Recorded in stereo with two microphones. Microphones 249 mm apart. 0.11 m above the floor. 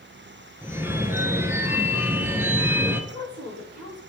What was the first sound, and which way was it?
A phone ringing, 10° right (ahead or behind).